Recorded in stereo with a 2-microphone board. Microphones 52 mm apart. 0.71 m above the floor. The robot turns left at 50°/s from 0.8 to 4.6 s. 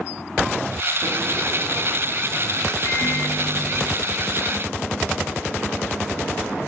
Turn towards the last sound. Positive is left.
turn(degrees=25)